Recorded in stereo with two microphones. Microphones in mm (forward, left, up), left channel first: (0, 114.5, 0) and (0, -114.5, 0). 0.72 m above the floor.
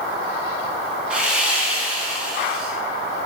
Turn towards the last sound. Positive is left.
turn(degrees=-5)  # may be behind; listen again after turning